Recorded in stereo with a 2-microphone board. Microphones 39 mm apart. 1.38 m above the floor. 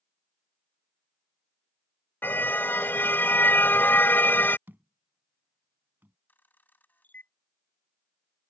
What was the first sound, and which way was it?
A car horn, 60° left (ahead or behind).